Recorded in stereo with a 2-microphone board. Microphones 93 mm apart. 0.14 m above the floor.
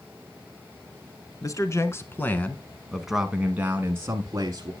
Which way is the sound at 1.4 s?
40° left (ahead or behind).